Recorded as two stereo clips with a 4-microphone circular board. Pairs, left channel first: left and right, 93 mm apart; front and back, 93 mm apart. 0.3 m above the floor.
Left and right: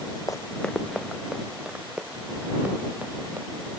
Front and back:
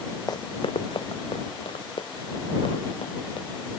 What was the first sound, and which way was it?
Running footsteps, 45° left.